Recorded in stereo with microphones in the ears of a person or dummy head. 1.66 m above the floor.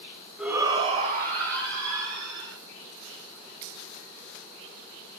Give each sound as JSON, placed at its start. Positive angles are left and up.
{"t": 0.4, "sound": "a shout", "side_deg": 0, "distance_m": 0.7}